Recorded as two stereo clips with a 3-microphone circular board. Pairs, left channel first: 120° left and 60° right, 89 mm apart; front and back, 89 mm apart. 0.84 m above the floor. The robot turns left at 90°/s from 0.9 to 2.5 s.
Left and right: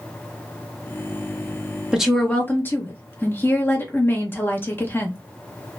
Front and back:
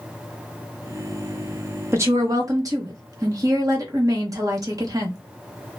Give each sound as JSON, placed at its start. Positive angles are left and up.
{"t": 1.9, "sound": "a woman speaking", "azimuth_deg": -135, "distance_m": 1.0}